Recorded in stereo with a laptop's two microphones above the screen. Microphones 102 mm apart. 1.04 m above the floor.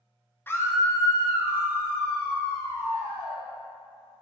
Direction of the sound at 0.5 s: 20° left (ahead or behind).